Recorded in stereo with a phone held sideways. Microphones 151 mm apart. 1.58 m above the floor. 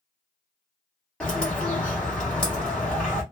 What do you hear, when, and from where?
1.2 s a bird: 10° left (ahead or behind), 1.3 m